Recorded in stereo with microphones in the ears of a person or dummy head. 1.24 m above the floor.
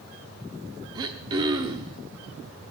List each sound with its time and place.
0.9 s throat clearing: 20° right (ahead or behind), 0.9 m